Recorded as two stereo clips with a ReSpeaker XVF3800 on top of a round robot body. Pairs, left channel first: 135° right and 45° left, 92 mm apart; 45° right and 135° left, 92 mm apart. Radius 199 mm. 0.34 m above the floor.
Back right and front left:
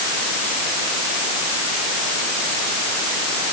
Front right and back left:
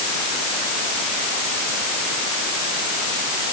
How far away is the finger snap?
I don't hear a finger snap.